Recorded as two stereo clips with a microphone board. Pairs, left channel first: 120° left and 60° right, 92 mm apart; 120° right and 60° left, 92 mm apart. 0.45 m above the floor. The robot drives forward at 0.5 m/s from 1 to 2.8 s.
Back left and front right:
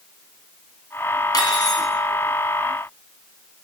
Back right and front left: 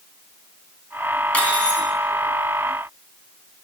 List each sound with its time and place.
1.3 s cutlery clinking: 165° left, 1.9 m